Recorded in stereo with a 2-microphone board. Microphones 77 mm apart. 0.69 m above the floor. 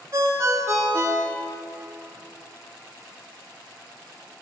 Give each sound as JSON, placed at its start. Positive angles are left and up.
{"t": 0.1, "sound": "a ringtone", "side_deg": -40, "distance_m": 0.9}